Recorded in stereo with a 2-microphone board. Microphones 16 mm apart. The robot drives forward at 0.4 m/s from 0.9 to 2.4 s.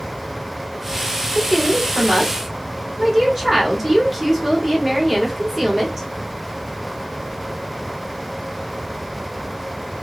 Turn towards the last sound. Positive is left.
turn(degrees=-15)  # may be behind; listen again after turning